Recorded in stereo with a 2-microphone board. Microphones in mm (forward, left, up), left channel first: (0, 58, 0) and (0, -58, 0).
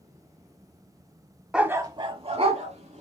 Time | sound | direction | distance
1.5 | a dog barking | 5° right (ahead or behind) | 0.5 m